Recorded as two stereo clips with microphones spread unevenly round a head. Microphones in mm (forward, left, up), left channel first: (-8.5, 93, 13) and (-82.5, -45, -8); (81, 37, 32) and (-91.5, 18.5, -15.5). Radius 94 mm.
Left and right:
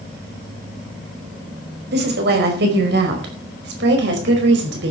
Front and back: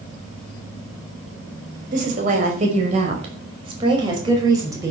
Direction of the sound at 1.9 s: 125° right.